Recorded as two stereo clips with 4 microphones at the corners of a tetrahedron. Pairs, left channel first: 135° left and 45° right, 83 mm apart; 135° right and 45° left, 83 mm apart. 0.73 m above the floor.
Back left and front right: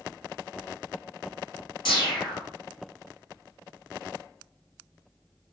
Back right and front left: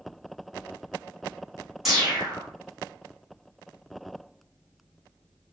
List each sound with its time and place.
1.9 s a whoosh: 130° left, 1.9 m